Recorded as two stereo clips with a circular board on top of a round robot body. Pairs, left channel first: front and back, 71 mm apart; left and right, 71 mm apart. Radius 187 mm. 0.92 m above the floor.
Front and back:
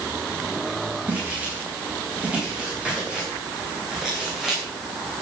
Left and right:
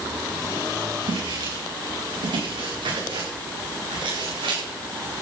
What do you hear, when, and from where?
1.1 s footsteps: 110° right, 9.5 m; by 4.6 s 90° right, 8.5 m